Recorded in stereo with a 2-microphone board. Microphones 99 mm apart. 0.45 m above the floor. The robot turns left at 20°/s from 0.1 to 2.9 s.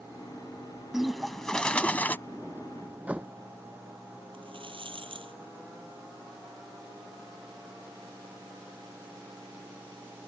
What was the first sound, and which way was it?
A bird, 5° right (ahead or behind).